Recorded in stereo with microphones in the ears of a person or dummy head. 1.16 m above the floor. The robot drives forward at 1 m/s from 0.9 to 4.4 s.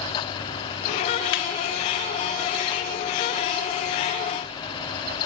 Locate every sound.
1.3 s laughter: 55° left (ahead or behind), 0.9 m; by 1.4 s 50° left (ahead or behind), 0.9 m